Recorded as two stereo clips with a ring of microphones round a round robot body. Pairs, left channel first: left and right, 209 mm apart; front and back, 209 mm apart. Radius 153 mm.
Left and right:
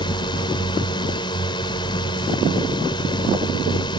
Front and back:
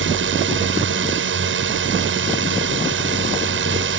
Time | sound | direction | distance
0.0 | a drone | 165° left | ?